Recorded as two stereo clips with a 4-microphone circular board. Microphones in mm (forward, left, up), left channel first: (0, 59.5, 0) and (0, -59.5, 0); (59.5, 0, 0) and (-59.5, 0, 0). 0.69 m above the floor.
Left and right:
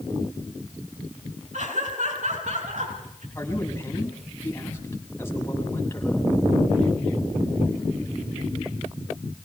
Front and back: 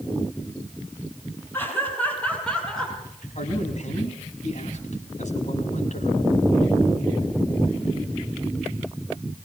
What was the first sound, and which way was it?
Laughter, 75° right.